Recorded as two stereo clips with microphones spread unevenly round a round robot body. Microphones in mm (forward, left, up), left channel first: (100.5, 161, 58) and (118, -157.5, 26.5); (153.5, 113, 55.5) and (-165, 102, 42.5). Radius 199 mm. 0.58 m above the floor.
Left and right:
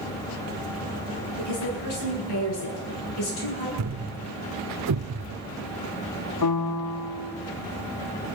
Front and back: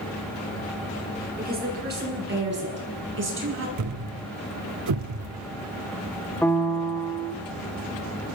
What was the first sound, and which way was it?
A woman speaking, 120° left.